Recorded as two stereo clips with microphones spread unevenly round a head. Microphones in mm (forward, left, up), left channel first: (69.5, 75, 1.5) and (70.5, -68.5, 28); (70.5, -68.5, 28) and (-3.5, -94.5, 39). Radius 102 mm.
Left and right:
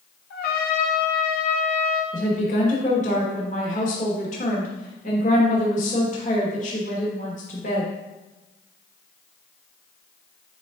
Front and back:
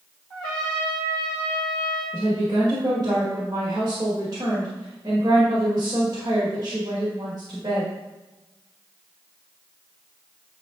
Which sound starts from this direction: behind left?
A woman speaking, at 2.1 s.